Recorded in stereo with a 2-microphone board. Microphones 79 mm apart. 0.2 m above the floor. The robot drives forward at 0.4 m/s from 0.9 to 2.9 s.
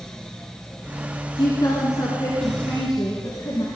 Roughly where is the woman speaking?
Left.